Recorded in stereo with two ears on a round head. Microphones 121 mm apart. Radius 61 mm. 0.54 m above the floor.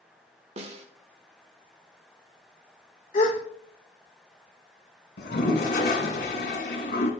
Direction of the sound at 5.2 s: 85° left.